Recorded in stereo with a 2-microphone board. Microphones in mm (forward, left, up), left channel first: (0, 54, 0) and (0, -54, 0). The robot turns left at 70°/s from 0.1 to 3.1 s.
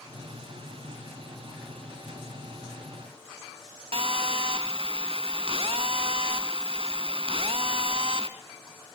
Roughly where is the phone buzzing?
Right.